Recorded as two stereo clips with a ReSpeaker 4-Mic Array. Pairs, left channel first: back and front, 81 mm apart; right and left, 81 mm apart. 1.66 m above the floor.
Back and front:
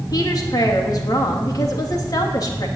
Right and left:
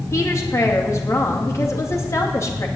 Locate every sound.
0.1 s a woman speaking: 140° right, 3 m